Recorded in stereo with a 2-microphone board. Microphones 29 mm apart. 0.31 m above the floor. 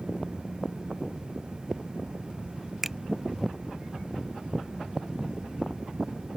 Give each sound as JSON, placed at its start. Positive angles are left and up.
{"t": 2.8, "sound": "a finger snap", "side_deg": -10}